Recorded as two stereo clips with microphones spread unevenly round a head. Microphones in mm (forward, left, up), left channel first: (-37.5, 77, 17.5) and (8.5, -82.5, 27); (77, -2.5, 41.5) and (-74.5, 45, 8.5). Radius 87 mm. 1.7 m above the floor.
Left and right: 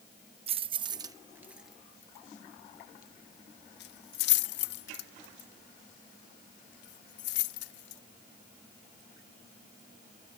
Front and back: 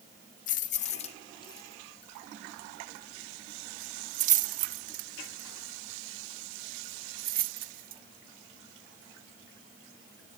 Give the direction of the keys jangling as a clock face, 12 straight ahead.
1 o'clock.